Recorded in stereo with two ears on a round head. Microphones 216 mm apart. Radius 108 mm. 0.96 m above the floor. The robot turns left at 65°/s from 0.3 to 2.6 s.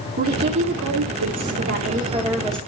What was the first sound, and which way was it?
A woman speaking, 40° right.